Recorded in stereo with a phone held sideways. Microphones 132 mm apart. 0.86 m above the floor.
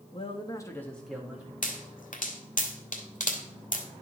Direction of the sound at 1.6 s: 80° left.